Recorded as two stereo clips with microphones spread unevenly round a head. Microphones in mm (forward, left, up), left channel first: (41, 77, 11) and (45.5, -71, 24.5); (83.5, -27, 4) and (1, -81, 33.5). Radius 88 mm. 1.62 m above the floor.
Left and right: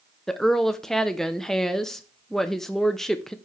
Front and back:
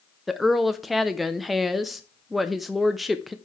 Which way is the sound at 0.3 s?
175° right.